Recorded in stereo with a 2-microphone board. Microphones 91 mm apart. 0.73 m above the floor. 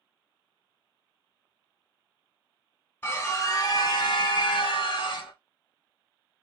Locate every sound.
3.0 s a scream: 20° left (ahead or behind), 1.1 m; by 5.3 s 65° left (ahead or behind), 1.0 m